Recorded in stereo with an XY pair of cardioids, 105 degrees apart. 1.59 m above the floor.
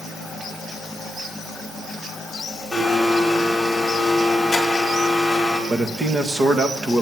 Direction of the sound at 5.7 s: 35° right.